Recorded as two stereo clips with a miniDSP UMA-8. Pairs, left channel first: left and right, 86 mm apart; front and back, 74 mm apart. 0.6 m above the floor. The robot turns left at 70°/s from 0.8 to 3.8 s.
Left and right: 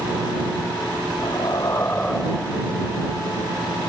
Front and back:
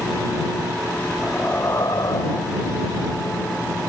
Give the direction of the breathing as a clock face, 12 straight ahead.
9 o'clock.